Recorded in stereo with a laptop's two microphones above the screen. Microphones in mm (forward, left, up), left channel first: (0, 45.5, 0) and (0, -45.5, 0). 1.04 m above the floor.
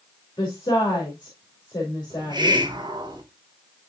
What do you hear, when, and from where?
0.4 s a woman speaking: 50° left (ahead or behind), 2 m
2.1 s a hiss: 50° right (ahead or behind), 1.5 m